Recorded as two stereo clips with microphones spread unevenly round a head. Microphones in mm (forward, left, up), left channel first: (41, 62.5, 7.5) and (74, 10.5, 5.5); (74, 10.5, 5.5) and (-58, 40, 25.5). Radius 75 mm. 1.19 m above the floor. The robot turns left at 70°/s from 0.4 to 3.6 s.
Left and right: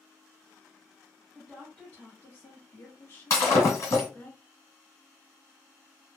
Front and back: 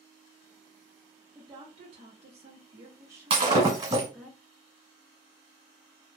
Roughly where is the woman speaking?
Behind right.